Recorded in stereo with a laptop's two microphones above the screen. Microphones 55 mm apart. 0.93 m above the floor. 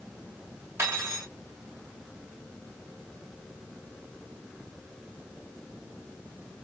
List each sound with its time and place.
0.8 s cutlery clinking: 45° right (ahead or behind), 2.5 m